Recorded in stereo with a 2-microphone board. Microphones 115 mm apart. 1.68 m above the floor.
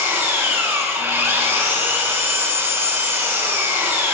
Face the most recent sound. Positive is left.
turn(degrees=-20)  # may be behind; listen again after turning